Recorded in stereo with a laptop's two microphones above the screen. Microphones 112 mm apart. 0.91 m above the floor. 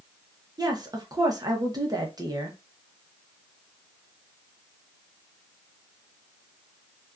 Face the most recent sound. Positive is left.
turn(degrees=-35)  # may be behind; listen again after turning